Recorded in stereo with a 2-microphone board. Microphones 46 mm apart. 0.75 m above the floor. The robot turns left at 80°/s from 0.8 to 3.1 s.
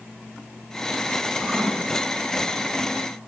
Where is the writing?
5° right (ahead or behind), 2.5 m; by 1.7 s 30° right (ahead or behind), 2.5 m.